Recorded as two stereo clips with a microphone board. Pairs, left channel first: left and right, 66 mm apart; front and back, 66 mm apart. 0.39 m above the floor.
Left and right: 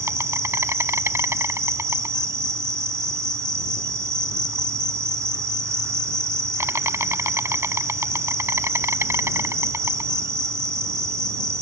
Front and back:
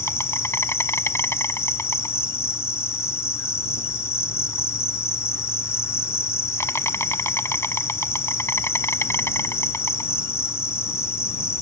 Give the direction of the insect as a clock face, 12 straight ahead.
2 o'clock.